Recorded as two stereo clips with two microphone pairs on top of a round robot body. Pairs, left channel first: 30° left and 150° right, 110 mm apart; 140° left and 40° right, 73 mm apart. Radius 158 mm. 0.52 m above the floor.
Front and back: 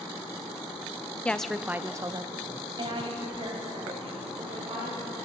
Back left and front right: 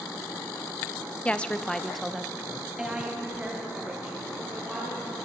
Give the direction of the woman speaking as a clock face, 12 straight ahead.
8 o'clock.